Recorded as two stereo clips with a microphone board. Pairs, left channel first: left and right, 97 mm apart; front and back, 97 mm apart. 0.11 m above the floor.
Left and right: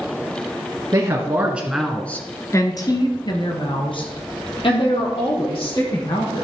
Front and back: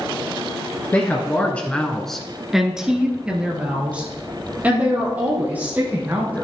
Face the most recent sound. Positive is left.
turn(degrees=110)